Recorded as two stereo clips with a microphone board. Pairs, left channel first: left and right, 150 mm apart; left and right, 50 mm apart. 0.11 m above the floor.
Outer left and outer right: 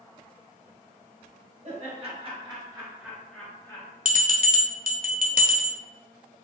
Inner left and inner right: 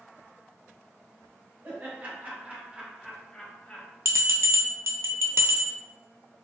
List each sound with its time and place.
1.6 s laughter: 50° right (ahead or behind), 1.7 m; by 3.9 s 25° left (ahead or behind), 1.2 m
4.0 s a bell: 70° right (ahead or behind), 0.5 m